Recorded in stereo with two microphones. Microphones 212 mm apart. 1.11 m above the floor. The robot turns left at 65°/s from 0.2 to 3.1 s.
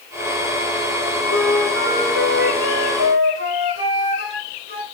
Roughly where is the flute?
Ahead.